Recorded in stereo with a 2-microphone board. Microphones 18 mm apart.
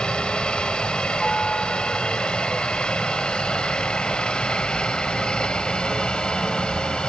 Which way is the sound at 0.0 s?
60° left (ahead or behind).